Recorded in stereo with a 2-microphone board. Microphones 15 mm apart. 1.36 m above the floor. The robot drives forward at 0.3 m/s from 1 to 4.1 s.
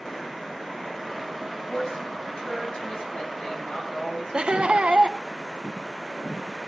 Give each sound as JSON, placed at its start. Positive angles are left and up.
{"t": 1.5, "sound": "a woman speaking", "side_deg": 75, "distance_m": 8.5}
{"t": 4.3, "sound": "laughter", "side_deg": -75, "distance_m": 1.2}